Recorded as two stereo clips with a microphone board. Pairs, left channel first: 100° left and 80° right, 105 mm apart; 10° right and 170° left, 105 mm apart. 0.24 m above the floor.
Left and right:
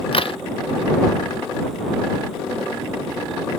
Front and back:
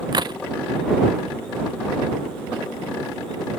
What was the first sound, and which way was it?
A crack, 125° left.